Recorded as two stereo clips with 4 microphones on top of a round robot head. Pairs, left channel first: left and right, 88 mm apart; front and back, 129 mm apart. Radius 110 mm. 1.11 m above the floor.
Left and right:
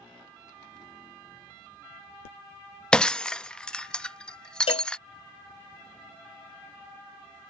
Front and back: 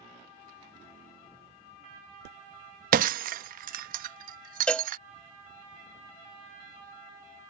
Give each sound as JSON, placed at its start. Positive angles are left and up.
{"t": 2.9, "sound": "breaking glass", "azimuth_deg": 170}
{"t": 4.7, "sound": "a cowbell", "azimuth_deg": 80}